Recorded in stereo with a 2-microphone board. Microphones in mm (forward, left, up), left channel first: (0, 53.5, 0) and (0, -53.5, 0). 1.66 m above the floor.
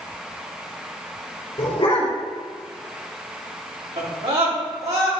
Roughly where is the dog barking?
Left.